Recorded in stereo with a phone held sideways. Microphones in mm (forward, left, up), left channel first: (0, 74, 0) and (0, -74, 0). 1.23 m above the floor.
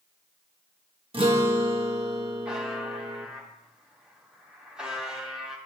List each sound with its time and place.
1.1 s a guitar: 35° right (ahead or behind), 1.0 m
2.5 s a buzzer: 5° right (ahead or behind), 3 m